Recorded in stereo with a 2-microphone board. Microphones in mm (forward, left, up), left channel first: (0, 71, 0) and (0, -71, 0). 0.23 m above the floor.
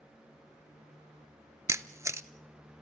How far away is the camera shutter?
About 0.6 m.